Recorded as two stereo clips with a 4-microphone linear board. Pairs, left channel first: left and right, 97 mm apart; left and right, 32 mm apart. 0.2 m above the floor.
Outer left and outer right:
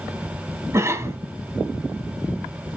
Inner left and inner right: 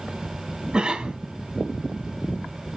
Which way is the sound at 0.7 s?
30° right (ahead or behind).